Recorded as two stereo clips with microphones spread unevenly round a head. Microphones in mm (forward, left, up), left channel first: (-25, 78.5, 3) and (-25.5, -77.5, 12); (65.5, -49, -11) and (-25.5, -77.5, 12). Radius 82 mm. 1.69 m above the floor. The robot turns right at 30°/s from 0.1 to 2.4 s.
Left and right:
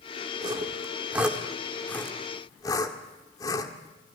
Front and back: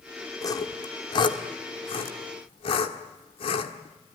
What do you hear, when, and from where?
0.4 s sawing: 35° right, 1.7 m; by 3.7 s 25° left, 1.7 m